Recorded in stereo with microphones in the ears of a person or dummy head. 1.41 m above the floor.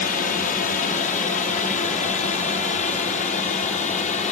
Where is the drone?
45° left (ahead or behind); by 4.3 s 40° left (ahead or behind).